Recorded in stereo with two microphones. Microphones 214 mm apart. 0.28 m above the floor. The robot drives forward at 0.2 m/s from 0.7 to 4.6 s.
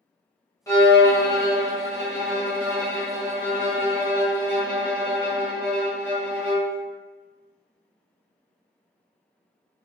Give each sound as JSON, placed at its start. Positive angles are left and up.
{"t": 0.7, "sound": "a violin", "side_deg": 15, "distance_m": 0.9}